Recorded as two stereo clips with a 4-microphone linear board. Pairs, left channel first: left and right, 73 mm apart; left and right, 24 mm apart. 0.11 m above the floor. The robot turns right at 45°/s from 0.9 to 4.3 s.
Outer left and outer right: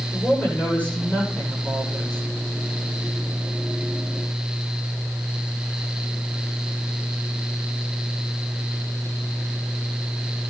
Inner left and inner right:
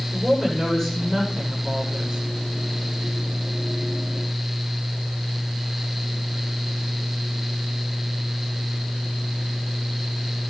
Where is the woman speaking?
160° left, 9.5 m; by 2.2 s 140° right, 9.5 m.